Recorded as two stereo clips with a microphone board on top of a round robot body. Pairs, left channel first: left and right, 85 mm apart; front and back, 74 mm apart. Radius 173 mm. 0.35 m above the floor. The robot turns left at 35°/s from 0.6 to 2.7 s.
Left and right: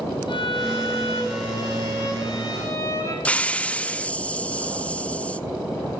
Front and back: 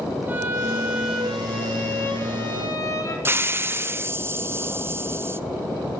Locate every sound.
0.3 s a violin: 115° left, 6 m; by 3.1 s 40° left, 6 m
3.2 s a hiss: 155° left, 1.1 m